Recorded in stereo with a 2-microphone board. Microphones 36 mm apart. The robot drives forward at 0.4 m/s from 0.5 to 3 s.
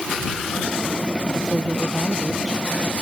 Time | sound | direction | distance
1.4 | a woman speaking | 20° right (ahead or behind) | ?